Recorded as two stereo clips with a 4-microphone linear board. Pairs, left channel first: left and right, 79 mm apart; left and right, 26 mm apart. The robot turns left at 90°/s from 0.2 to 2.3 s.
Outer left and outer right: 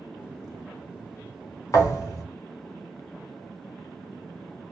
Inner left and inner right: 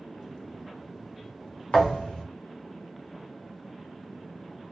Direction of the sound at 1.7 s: 120° left.